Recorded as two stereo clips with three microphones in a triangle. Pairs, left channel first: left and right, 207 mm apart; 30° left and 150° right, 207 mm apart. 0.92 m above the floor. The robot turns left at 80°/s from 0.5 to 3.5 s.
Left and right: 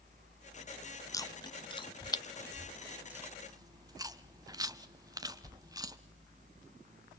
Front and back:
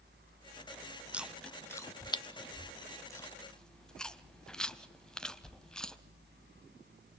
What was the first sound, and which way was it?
Chewing, 135° left.